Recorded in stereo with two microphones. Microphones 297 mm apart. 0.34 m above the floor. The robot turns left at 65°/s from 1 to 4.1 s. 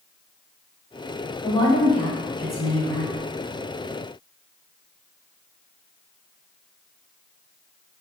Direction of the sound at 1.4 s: 15° left (ahead or behind).